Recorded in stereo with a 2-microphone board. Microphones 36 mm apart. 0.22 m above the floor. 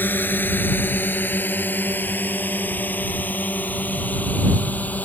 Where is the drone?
65° left (ahead or behind); by 5.0 s 50° left (ahead or behind).